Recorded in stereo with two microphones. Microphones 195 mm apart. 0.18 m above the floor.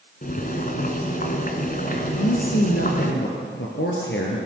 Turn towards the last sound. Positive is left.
turn(degrees=70)  # may be behind; listen again after turning